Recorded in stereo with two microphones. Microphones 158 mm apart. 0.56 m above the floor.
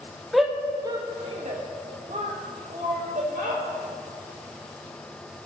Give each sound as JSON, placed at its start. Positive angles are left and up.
{"t": 0.3, "sound": "a shout", "side_deg": 0, "distance_m": 0.8}